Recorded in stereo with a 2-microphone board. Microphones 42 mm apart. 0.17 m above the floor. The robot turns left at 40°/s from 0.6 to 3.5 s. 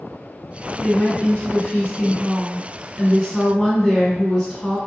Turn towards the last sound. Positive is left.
turn(degrees=5)